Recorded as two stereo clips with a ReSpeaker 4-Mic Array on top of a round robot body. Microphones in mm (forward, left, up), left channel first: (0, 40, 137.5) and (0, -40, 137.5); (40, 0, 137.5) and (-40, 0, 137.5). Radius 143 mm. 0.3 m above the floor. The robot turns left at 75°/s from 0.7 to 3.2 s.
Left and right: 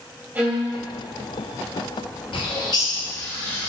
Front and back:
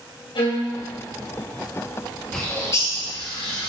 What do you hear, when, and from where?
0.3 s a violin: 20° right, 2.5 m; by 0.7 s 25° right, 2.5 m
2.3 s a bird: 85° left, 2 m; by 3.7 s 20° left, 2 m